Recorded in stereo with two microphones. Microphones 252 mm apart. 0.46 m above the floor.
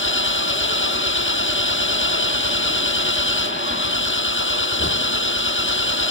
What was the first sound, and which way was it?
An engine running, 55° left (ahead or behind).